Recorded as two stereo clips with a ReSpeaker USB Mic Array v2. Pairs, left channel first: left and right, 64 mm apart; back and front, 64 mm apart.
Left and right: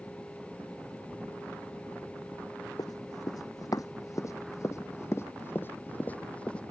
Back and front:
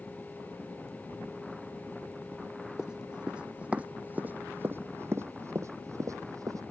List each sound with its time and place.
2.8 s running footsteps: 80° left; by 6.6 s 15° left